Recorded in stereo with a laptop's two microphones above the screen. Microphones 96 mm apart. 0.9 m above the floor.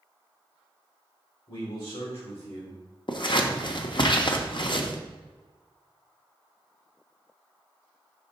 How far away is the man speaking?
About 2 m.